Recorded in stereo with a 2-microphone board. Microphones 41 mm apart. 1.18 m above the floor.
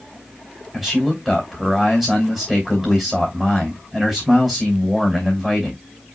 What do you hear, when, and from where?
0.7 s a man speaking: 5° right (ahead or behind), 3 m